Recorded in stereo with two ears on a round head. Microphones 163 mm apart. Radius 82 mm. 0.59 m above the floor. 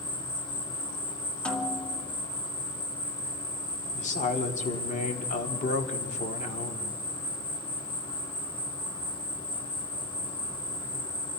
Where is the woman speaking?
45° left (ahead or behind), 1.8 m.